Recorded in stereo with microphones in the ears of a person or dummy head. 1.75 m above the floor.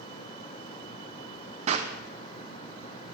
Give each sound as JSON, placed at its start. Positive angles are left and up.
{"t": 1.7, "sound": "a clap", "side_deg": -40, "distance_m": 0.6}